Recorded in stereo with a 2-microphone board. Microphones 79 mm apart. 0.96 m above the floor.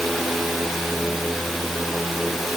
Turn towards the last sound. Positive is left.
No sound to turn to.